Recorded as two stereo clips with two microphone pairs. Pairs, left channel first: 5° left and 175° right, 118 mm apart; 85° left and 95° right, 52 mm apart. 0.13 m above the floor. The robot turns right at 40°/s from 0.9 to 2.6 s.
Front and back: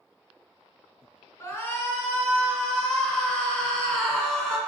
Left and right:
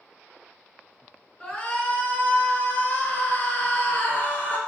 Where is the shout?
30° left, 1.3 m; by 4.6 s 80° left, 1.3 m.